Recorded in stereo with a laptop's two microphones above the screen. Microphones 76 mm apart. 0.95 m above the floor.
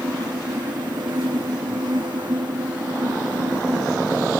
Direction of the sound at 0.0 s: 75° right (ahead or behind).